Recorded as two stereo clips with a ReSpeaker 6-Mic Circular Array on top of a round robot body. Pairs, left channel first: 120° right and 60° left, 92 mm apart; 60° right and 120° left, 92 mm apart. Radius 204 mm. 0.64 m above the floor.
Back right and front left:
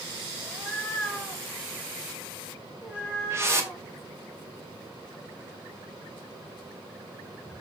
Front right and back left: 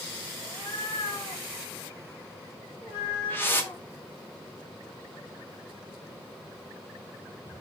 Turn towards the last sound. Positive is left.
turn(degrees=5)